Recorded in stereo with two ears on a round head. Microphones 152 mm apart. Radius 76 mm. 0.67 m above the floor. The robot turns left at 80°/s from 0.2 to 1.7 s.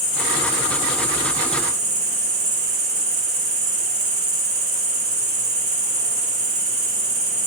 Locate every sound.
0.0 s an insect: 80° left, 1.0 m; by 7.5 s 40° right, 1.0 m